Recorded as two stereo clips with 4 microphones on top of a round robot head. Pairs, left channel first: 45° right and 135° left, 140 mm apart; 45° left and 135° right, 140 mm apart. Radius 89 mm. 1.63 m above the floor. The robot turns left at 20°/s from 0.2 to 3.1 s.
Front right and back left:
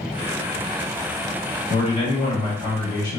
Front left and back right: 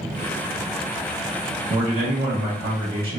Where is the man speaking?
85° right, 2 m; by 3.2 s 115° right, 2 m.